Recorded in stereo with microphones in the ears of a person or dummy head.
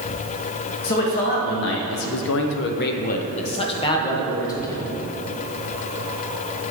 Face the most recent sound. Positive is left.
turn(degrees=10)  # may be behind; listen again after turning